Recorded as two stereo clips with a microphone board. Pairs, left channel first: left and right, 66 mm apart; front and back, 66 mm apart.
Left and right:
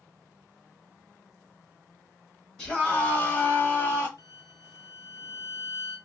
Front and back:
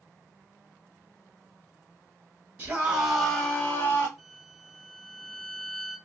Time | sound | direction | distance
2.6 | a scream | 145° left | 1.1 m
4.2 | a violin | 90° left | 1.6 m